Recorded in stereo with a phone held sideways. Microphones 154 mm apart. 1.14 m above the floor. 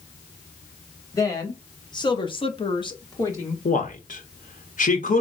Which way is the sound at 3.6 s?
60° left (ahead or behind).